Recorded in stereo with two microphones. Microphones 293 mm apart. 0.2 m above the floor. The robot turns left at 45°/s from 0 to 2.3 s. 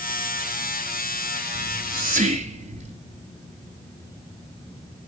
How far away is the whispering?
About 2.0 m.